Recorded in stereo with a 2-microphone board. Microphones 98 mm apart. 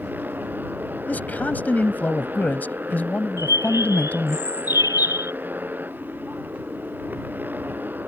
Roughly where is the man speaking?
Centre.